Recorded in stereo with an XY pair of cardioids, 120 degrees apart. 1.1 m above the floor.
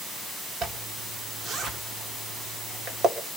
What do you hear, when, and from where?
0.6 s a zipper: 50° right, 2.5 m